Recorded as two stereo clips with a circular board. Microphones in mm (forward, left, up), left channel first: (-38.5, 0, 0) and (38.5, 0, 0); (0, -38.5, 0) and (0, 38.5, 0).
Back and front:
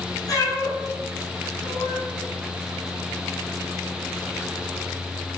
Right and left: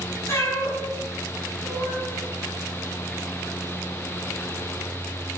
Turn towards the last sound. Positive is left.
turn(degrees=-135)